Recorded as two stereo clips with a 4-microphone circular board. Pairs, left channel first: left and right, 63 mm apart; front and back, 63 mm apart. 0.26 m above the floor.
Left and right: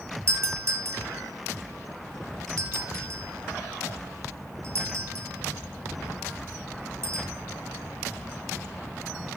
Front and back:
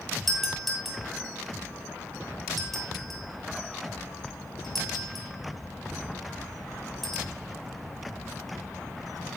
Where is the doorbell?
85° right, 2.5 m.